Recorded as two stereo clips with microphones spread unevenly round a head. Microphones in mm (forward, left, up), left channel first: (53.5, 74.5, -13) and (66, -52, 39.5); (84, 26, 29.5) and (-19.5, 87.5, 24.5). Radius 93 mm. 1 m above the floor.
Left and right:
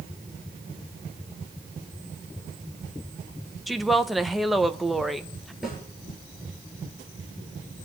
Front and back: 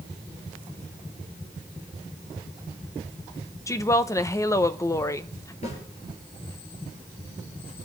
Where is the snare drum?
Straight ahead, 6.5 m.